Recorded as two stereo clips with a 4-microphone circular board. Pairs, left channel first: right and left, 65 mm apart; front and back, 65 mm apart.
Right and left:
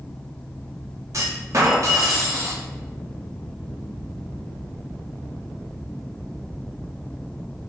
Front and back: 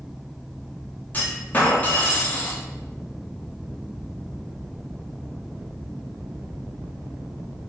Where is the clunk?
60° left, 0.8 m.